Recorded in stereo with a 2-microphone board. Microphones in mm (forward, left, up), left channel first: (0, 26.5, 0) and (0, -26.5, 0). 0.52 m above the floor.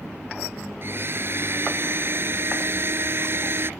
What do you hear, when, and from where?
0.8 s a blender: 50° right (ahead or behind)